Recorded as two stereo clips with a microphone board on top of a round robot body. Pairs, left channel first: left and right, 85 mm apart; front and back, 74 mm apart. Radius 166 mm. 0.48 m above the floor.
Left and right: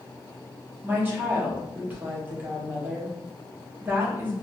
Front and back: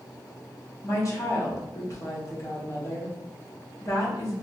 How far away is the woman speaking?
About 1.3 m.